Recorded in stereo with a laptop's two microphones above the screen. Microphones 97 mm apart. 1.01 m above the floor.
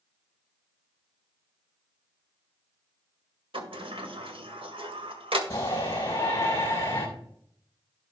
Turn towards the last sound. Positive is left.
turn(degrees=30)  # may be behind; listen again after turning